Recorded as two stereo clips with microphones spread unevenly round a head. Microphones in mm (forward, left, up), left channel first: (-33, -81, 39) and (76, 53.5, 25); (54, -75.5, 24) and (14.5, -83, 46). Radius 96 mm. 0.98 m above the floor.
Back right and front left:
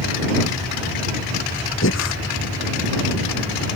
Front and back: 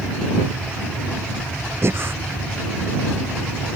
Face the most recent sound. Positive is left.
turn(degrees=-155)